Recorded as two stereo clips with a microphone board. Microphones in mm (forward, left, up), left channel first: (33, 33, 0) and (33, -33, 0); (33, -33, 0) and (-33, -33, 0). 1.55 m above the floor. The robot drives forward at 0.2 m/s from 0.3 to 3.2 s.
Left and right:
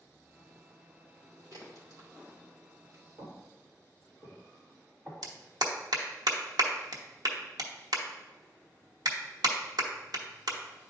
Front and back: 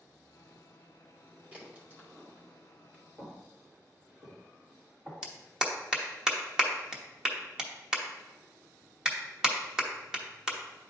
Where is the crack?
115° right, 2 m; by 3.0 s 120° right, 2.5 m.